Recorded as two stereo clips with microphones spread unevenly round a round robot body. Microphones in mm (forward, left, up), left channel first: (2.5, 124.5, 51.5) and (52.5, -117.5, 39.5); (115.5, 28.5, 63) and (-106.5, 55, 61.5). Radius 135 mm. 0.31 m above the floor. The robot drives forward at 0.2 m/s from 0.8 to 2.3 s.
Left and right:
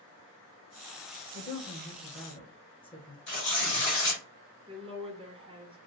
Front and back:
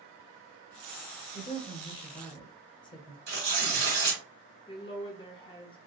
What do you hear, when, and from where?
1.3 s a woman speaking: 35° left, 1.1 m; by 3.2 s 45° left, 1.0 m
3.3 s tearing paper: 140° left, 2.0 m
4.7 s a woman speaking: 45° right, 1.1 m